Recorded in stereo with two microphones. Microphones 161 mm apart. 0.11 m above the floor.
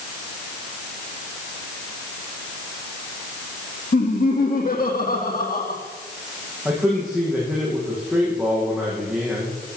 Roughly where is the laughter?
Left.